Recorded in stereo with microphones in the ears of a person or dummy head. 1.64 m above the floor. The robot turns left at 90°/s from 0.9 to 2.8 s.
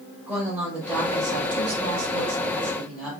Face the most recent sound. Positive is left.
turn(degrees=180)